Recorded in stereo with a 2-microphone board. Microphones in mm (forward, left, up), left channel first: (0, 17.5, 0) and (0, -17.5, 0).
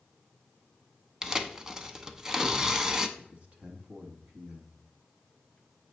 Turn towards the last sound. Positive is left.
turn(degrees=-40)  # may be behind; listen again after turning